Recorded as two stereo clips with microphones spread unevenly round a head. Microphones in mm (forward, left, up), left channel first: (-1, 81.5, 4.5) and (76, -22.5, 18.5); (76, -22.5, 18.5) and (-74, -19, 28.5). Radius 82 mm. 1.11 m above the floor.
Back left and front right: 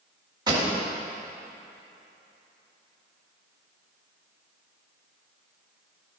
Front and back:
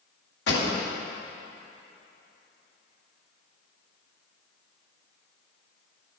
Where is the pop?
5° left, 2.0 m.